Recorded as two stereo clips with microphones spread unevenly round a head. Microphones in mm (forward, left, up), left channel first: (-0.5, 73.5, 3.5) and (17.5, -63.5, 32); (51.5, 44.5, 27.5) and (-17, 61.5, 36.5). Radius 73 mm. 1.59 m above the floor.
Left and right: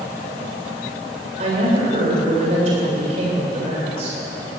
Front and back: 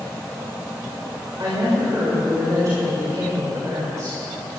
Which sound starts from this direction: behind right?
A woman speaking, at 1.4 s.